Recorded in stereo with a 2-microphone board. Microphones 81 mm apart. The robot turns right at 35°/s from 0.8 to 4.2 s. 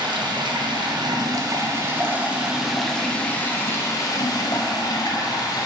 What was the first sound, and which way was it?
Running water, 70° right.